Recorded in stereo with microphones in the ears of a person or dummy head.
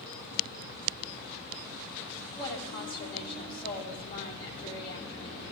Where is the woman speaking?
35° left (ahead or behind), 9.5 m.